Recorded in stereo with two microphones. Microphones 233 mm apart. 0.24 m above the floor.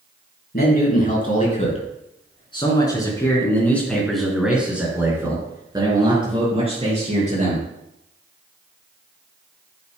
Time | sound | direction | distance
0.5 | a man speaking | 40° left (ahead or behind) | 4 m